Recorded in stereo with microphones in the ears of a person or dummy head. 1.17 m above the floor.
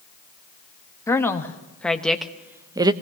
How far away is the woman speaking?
About 1.5 m.